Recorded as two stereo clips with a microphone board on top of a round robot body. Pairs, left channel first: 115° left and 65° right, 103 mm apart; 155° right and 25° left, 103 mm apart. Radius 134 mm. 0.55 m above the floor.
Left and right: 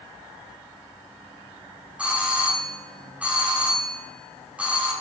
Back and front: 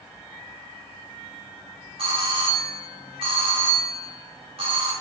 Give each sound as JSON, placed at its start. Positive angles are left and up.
{"t": 2.0, "sound": "a doorbell", "azimuth_deg": 10, "distance_m": 4.5}